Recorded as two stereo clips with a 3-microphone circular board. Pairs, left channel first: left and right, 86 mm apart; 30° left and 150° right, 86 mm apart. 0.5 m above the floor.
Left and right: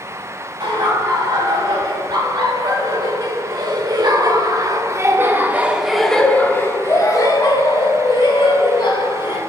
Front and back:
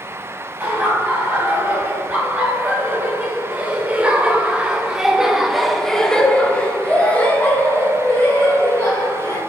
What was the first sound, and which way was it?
Laughter, 80° right.